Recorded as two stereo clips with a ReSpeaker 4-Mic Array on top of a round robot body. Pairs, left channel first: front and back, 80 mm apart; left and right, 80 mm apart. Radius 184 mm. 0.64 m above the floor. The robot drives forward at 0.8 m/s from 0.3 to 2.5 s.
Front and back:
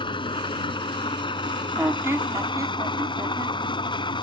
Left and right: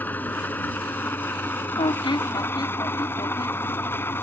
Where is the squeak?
105° left; by 3.6 s 130° left.